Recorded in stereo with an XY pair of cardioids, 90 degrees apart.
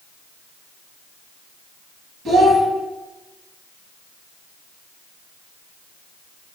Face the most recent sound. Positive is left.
turn(degrees=-65)